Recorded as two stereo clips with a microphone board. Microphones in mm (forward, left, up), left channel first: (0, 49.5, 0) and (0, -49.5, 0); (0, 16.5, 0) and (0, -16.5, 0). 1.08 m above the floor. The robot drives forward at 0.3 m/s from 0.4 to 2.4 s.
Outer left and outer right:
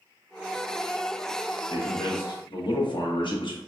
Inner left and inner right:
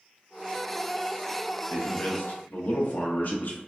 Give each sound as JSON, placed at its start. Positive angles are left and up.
{"t": 1.7, "sound": "a man speaking", "side_deg": 45, "distance_m": 1.0}